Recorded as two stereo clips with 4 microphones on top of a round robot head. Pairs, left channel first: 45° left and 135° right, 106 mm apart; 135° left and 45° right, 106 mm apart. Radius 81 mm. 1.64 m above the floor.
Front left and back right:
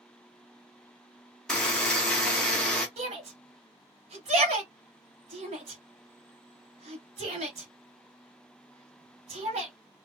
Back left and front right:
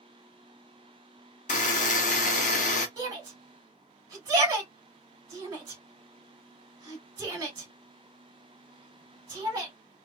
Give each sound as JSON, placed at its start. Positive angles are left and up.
{"t": 1.5, "sound": "a buzzer", "azimuth_deg": 130, "distance_m": 0.7}
{"t": 3.0, "sound": "a shout", "azimuth_deg": -110, "distance_m": 1.6}